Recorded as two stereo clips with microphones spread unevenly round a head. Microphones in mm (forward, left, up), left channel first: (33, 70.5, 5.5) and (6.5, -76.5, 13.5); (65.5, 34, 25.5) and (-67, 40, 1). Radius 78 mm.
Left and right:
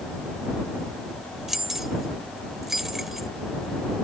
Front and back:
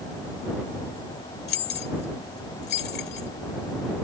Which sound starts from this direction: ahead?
Keys jangling, at 1.5 s.